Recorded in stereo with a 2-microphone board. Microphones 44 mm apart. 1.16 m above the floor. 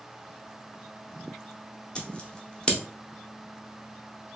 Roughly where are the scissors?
Left.